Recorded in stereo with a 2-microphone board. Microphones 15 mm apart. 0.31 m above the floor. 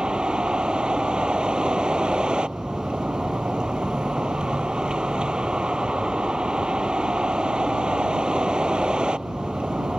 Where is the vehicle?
70° right (ahead or behind).